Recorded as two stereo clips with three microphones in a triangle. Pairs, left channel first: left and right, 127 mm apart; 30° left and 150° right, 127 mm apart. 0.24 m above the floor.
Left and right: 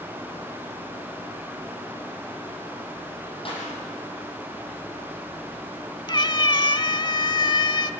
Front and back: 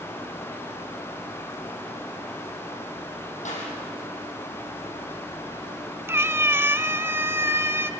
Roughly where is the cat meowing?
Behind left.